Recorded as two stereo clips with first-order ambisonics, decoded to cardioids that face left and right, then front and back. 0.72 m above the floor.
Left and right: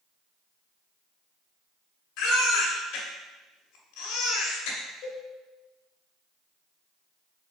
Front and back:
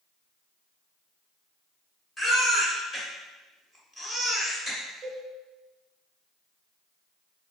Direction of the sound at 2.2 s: 80° left.